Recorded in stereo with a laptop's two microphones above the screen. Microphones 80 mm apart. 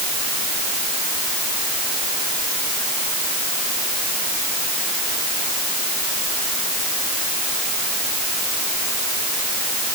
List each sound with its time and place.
Only background noise.